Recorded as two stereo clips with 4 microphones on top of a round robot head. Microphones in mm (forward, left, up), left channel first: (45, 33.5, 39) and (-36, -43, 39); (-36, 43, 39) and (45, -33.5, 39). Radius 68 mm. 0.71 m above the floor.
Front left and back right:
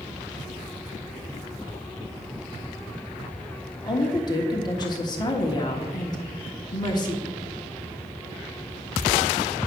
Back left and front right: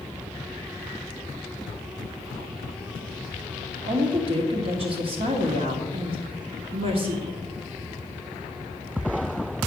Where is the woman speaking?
10° right, 1.3 m.